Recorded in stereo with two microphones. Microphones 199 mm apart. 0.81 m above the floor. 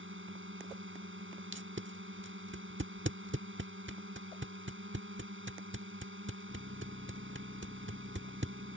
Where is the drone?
80° right.